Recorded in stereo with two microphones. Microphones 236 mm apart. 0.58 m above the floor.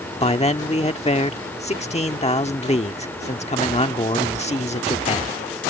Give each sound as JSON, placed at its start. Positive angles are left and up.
{"t": 0.2, "sound": "a man speaking", "side_deg": 25}